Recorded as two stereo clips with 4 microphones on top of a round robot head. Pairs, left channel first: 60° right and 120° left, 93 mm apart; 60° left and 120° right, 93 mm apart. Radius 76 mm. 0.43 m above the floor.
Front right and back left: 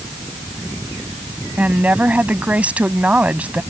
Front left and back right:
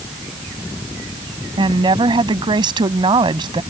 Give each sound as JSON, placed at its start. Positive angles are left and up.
{"t": 1.6, "sound": "a woman speaking", "azimuth_deg": -160}